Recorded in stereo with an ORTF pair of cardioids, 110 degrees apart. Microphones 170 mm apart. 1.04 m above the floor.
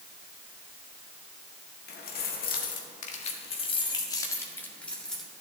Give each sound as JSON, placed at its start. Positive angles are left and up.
{"t": 1.9, "sound": "keys jangling", "azimuth_deg": 70, "distance_m": 1.9}